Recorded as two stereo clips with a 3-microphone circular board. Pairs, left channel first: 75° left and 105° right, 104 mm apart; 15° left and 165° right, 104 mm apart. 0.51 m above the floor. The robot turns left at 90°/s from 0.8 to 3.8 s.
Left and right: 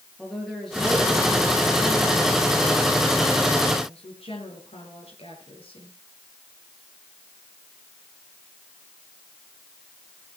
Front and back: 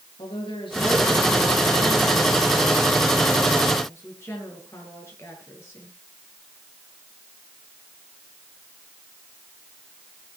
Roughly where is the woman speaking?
Ahead.